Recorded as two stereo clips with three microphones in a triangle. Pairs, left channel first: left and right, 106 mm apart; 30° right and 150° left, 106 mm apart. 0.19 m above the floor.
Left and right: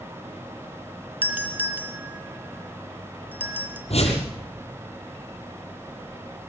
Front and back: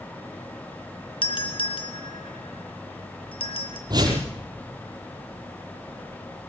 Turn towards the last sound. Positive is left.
turn(degrees=105)